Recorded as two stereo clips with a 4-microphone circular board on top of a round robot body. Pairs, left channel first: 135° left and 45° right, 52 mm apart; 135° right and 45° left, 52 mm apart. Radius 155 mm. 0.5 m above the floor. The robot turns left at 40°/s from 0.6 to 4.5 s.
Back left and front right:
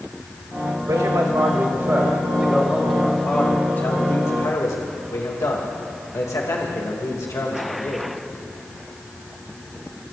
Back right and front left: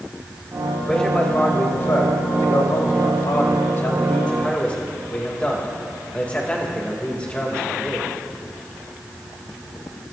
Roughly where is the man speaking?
Ahead right.